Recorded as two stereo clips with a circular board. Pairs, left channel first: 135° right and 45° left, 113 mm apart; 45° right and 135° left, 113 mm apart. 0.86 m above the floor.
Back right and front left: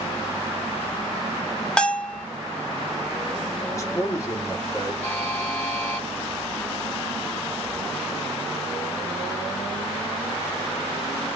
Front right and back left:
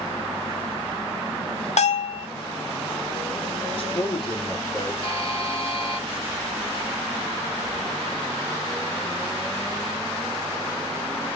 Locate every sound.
1.8 s a bell: 55° right, 0.6 m
3.7 s a man speaking: 75° right, 1.3 m
5.0 s a buzzer: 65° right, 1.4 m